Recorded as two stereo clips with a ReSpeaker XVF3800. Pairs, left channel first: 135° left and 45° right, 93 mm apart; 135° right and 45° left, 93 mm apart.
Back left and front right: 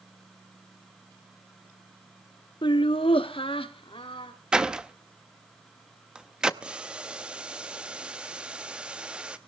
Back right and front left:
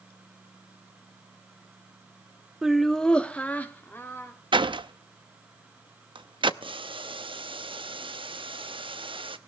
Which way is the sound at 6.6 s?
35° left.